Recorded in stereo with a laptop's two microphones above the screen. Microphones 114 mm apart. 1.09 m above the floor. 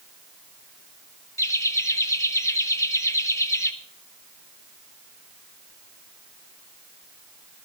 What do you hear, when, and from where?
1.4 s laughter: 25° left (ahead or behind), 1.0 m